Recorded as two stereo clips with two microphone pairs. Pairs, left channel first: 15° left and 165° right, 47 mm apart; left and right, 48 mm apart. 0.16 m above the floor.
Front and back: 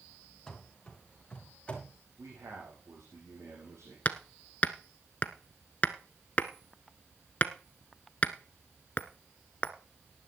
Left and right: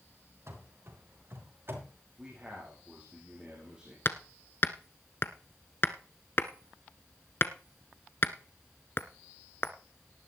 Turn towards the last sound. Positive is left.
turn(degrees=65)